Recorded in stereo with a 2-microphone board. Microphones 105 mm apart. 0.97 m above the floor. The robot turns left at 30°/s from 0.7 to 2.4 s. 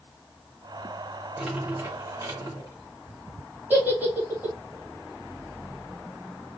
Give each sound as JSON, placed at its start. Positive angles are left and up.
{"t": 1.4, "sound": "dripping", "azimuth_deg": -5, "distance_m": 3.5}
{"t": 3.7, "sound": "a giggle", "side_deg": -20, "distance_m": 2.5}